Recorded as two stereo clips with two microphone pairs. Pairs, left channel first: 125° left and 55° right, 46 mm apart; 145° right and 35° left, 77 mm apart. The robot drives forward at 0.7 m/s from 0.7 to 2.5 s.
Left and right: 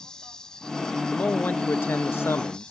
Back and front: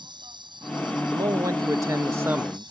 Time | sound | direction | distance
0.0 | an insect | 45° left | ?
1.1 | a man speaking | 65° left | ?